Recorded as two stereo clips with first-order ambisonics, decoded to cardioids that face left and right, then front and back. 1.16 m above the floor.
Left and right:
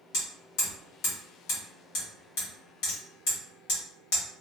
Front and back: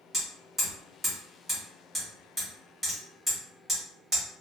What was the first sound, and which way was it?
Hammering, 95° left.